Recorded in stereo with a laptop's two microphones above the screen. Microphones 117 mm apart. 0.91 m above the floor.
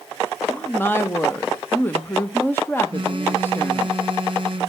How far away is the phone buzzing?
About 1.0 m.